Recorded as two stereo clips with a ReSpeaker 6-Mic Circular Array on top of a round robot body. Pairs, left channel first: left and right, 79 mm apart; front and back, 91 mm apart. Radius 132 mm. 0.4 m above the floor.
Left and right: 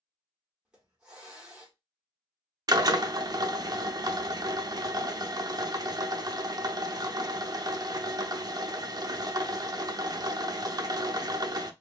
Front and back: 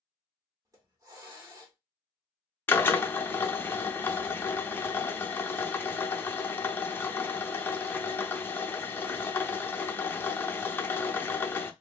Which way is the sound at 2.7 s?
65° right.